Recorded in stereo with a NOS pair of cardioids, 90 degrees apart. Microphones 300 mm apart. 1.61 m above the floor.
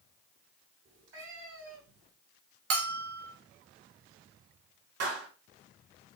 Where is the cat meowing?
40° right, 5 m; by 2.1 s 55° right, 3.5 m.